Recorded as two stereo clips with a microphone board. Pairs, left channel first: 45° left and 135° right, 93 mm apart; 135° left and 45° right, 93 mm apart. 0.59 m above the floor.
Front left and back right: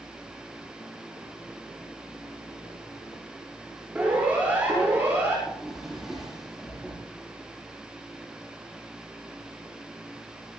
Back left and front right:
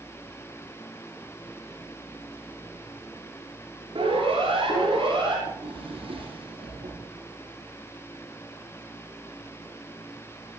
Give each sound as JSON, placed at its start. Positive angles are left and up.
{"t": 4.0, "sound": "a siren", "azimuth_deg": -60, "distance_m": 7.0}
{"t": 5.5, "sound": "a drawer", "azimuth_deg": -50, "distance_m": 9.5}